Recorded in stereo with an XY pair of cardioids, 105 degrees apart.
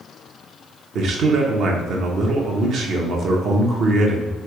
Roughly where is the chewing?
No chewing in this recording.